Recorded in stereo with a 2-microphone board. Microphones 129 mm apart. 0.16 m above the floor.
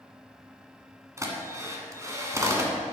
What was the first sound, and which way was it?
A drill, 25° right (ahead or behind).